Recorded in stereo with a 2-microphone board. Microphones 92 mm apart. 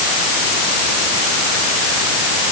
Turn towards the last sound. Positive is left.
No sound to turn to.